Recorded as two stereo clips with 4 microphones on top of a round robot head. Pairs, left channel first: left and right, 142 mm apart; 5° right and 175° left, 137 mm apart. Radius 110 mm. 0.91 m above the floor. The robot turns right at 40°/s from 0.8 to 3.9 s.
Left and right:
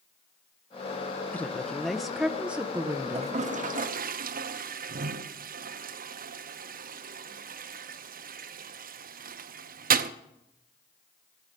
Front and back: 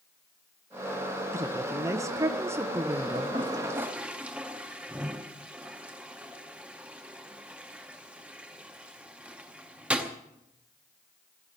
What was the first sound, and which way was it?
A woman speaking, 150° left.